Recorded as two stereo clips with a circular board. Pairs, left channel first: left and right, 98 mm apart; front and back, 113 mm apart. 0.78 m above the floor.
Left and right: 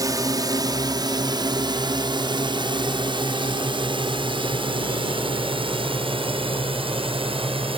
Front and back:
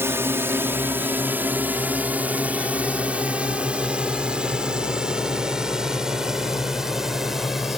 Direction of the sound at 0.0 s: 120° right.